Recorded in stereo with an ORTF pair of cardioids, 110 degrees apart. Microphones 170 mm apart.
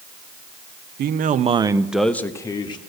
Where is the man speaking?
65° right, 0.8 m; by 2.8 s 30° left, 1.2 m.